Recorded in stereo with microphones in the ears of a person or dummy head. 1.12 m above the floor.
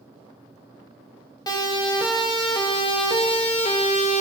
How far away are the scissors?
No scissors in this recording.